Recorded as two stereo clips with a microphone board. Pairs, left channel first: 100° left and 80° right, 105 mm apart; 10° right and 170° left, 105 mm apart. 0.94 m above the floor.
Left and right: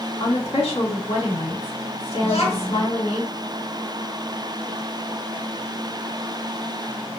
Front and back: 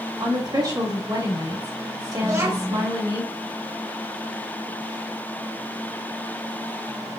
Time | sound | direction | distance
0.2 | a woman speaking | 120° left | 1.8 m
2.2 | a child speaking | 110° left | 1.3 m